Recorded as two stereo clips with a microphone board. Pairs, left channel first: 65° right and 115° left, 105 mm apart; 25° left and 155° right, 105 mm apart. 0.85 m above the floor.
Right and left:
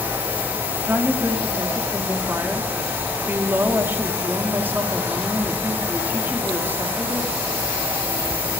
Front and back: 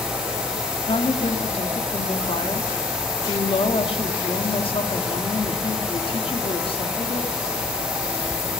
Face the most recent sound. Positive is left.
turn(degrees=45)